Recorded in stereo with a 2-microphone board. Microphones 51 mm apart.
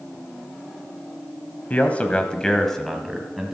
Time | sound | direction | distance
1.7 | a man speaking | 30° left (ahead or behind) | 1.0 m